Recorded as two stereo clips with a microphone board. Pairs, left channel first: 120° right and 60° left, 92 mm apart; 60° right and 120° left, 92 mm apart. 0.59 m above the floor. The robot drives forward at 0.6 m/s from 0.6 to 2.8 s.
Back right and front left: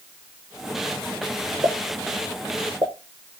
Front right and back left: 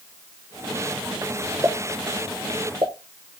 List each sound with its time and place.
1.6 s a pop: 65° left, 1.5 m; by 2.9 s 90° left, 1.4 m